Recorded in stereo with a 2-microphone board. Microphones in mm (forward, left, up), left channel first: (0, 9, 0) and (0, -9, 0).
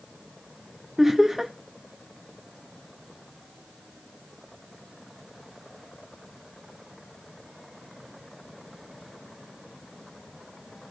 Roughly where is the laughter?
Right.